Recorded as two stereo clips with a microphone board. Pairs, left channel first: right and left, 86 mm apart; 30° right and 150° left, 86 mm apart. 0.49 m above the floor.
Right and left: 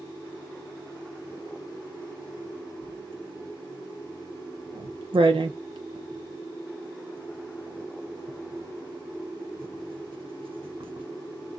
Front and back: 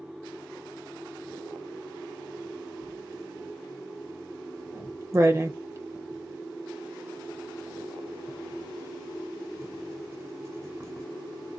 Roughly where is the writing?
Left.